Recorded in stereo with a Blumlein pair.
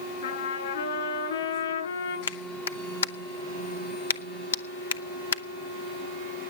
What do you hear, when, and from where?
0.2 s a trumpet: 60° left, 8.5 m
2.3 s a clap: 65° left, 0.9 m